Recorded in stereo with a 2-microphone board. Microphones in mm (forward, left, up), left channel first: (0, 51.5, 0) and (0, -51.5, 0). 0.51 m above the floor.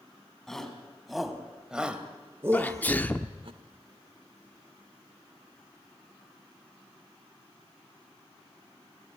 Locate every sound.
0.5 s a shout: 5° left (ahead or behind), 3.5 m; by 3.5 s 55° right (ahead or behind), 1.2 m
2.5 s a sneeze: 15° left (ahead or behind), 0.8 m